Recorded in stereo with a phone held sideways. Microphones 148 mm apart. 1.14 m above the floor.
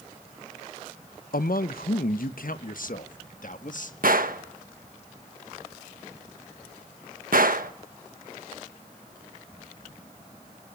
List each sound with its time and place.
1.3 s a man speaking: 75° left (ahead or behind), 0.7 m; by 3.9 s 60° left (ahead or behind), 1.9 m
4.0 s a gunshot: 70° right (ahead or behind), 1.2 m